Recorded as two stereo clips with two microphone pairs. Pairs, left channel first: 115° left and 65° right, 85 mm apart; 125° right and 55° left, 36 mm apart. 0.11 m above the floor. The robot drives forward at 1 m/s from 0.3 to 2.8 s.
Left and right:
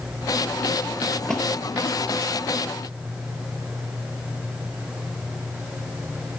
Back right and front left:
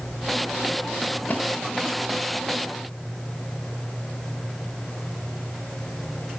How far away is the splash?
About 0.9 m.